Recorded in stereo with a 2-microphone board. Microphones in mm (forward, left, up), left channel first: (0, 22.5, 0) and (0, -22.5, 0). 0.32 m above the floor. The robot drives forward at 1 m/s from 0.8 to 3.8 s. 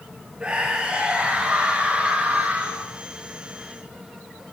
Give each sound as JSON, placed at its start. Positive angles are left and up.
{"t": 0.4, "sound": "a scream", "side_deg": -20, "distance_m": 5.5}